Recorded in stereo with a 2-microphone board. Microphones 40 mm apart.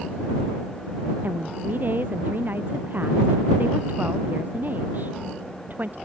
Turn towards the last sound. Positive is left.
turn(degrees=-50)  # may be behind; listen again after turning